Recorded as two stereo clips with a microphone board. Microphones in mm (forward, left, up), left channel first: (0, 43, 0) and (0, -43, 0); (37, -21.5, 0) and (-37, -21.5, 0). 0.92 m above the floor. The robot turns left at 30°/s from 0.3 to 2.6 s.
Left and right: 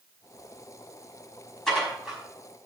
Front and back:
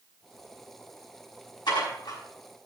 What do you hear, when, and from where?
1.7 s dishes clattering: 5° left, 5 m; by 2.2 s 10° right, 5 m